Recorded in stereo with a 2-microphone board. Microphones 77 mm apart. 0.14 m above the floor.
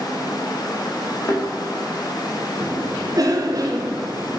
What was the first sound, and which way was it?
A thud, 50° left (ahead or behind).